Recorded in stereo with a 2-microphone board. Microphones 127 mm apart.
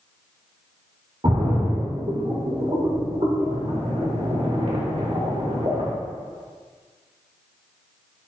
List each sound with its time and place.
1.2 s a splash: 50° right (ahead or behind), 1.8 m